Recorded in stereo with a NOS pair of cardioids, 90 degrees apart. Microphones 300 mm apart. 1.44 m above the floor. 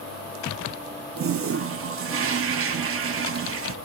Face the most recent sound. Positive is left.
turn(degrees=-45)